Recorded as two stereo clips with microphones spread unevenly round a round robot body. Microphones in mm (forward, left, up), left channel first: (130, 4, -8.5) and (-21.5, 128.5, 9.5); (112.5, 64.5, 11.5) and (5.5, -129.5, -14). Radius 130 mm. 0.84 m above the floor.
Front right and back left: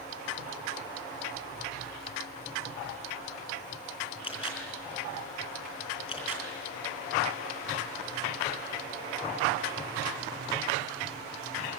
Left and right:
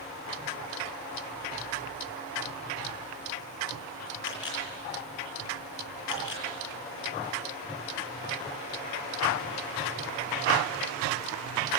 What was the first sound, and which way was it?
A camera shutter, 25° left.